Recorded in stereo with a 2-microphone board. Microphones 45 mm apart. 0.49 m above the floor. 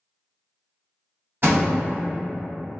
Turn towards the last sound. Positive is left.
turn(degrees=-55)  # may be behind; listen again after turning